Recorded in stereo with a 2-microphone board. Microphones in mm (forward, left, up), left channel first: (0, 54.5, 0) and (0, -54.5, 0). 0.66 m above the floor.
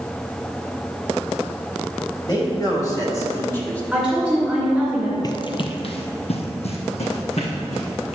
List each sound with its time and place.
2.3 s a man speaking: 40° left (ahead or behind), 3 m; by 3.8 s 10° left (ahead or behind), 1.5 m
3.9 s a woman speaking: centre (ahead or behind), 2.5 m
5.2 s running footsteps: 35° left (ahead or behind), 0.7 m; by 8.2 s 70° left (ahead or behind), 3 m